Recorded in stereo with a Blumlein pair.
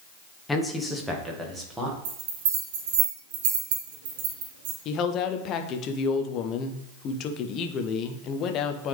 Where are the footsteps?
I don't hear footsteps.